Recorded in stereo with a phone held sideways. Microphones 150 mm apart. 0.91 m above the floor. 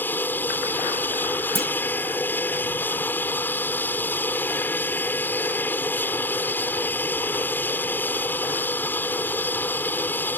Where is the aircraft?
15° left (ahead or behind).